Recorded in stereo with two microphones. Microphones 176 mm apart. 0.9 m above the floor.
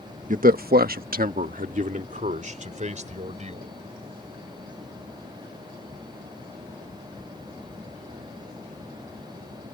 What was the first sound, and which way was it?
A man speaking, 45° right (ahead or behind).